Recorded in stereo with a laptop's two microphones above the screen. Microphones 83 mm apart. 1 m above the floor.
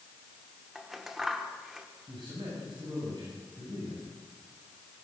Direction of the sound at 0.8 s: 5° right (ahead or behind).